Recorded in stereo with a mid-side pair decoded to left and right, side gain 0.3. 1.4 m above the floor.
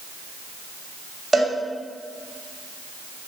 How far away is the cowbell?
About 0.9 m.